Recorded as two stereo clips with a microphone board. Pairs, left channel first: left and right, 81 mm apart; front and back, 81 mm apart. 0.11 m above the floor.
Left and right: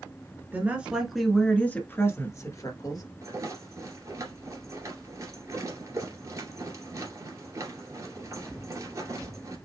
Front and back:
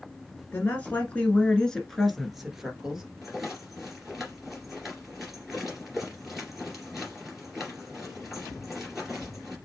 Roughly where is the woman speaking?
Ahead right.